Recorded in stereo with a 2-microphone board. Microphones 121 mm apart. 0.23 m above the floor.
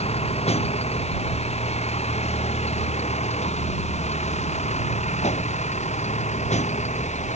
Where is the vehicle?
60° left (ahead or behind); by 7.4 s 70° left (ahead or behind).